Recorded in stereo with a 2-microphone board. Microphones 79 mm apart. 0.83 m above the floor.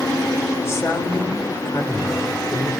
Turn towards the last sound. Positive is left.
turn(degrees=35)  # may be behind; listen again after turning